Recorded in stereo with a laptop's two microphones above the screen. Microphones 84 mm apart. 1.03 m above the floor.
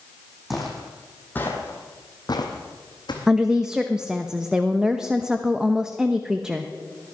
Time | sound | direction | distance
0.5 | footsteps | centre (ahead or behind) | 2.5 m
3.3 | a woman speaking | 10° right (ahead or behind) | 0.9 m